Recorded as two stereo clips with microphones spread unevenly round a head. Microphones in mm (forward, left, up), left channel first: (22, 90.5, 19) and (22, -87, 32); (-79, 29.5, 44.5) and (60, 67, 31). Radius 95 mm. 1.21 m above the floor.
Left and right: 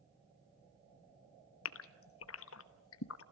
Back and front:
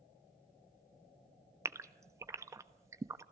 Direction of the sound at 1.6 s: 85° left.